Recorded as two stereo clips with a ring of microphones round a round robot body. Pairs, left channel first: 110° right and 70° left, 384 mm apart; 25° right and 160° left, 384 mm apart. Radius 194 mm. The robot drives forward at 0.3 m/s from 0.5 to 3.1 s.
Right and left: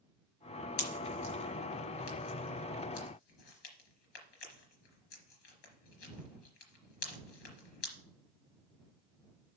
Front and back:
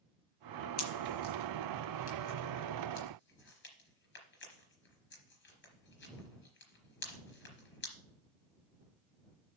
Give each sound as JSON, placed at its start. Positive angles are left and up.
{"t": 0.8, "sound": "a pop", "azimuth_deg": -75, "distance_m": 3.5}